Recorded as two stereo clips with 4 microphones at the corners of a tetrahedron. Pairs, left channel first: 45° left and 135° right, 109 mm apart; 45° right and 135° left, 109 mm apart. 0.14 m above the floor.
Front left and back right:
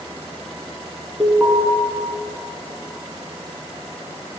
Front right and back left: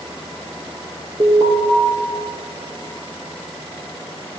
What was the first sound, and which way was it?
An alarm, 155° left.